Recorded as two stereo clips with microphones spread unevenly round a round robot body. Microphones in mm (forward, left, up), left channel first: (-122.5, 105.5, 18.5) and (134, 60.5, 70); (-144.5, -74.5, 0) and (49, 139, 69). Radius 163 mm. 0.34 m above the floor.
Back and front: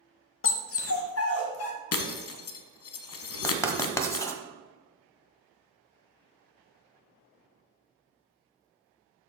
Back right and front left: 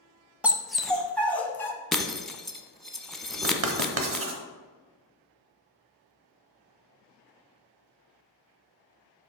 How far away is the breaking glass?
About 1.1 m.